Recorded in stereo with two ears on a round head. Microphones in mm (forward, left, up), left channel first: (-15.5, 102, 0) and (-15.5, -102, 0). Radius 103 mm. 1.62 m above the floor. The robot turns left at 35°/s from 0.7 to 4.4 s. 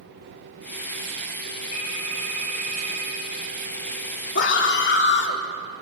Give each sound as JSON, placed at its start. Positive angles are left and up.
{"t": 1.7, "sound": "a phone ringing", "azimuth_deg": 20, "distance_m": 7.0}
{"t": 4.3, "sound": "a scream", "side_deg": 50, "distance_m": 3.5}